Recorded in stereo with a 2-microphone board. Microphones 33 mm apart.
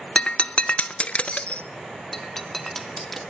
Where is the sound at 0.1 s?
40° left (ahead or behind), 0.9 m.